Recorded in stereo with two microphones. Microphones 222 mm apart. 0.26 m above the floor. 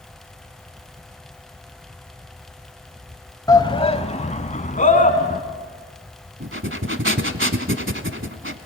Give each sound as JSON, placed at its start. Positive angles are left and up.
{"t": 3.5, "sound": "a shout", "side_deg": 15, "distance_m": 1.1}
{"t": 6.4, "sound": "breathing", "side_deg": -60, "distance_m": 1.0}